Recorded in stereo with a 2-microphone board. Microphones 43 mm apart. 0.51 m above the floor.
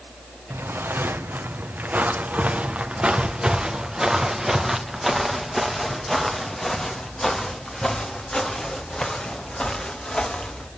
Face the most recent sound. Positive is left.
turn(degrees=25)  # may be behind; listen again after turning